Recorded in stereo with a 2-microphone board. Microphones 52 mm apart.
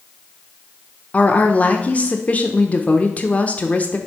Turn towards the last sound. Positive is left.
turn(degrees=30)  # may be behind; listen again after turning